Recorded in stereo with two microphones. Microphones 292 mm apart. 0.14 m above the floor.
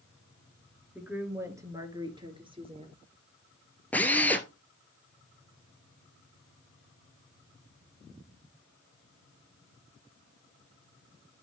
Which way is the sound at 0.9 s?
5° right (ahead or behind).